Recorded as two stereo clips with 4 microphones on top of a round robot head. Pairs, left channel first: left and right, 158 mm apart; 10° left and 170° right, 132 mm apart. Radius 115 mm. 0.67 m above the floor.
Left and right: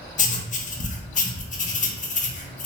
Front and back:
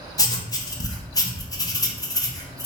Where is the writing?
70° left, 0.7 m.